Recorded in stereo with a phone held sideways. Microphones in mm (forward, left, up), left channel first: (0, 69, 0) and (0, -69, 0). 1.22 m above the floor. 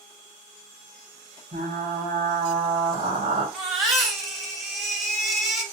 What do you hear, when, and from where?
1.5 s frying: 75° right (ahead or behind), 2.0 m
3.5 s a baby crying: centre (ahead or behind), 1.1 m